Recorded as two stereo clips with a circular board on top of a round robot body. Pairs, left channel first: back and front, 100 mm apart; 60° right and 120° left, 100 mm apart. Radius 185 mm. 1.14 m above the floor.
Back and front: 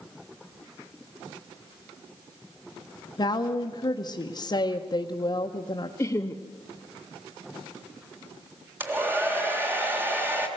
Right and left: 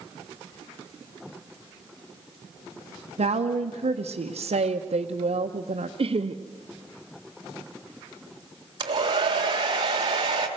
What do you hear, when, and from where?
3.2 s a woman speaking: 130° left, 0.9 m
6.0 s laughter: 120° left, 0.9 m
8.8 s a hair dryer: 70° left, 1.6 m